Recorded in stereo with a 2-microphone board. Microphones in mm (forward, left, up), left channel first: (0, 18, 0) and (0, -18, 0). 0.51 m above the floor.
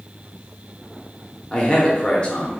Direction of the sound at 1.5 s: 25° left (ahead or behind).